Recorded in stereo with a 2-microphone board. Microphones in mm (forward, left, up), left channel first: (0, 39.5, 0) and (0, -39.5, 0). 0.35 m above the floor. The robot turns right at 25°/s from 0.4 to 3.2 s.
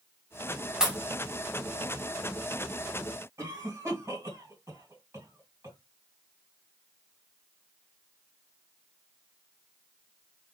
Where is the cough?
40° right (ahead or behind), 2.5 m.